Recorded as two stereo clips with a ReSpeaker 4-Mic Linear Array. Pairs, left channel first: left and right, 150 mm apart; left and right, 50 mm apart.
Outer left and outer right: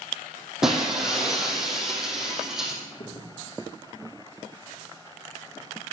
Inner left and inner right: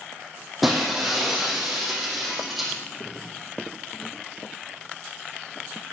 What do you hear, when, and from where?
0.6 s breaking glass: 5° right (ahead or behind), 3.5 m
2.9 s a crack: 70° left (ahead or behind), 5 m